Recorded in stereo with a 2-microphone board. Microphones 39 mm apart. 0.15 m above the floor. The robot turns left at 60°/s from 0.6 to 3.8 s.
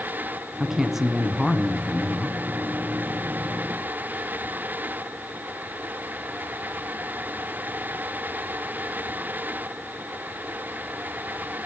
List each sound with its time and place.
0.6 s a man speaking: 10° right (ahead or behind), 1.0 m; by 2.4 s 20° left (ahead or behind), 1.0 m